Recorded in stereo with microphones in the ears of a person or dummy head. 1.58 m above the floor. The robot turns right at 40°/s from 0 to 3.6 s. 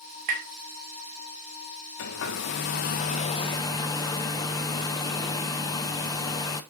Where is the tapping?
50° right (ahead or behind), 2.5 m; by 0.5 s 55° right (ahead or behind), 2.5 m.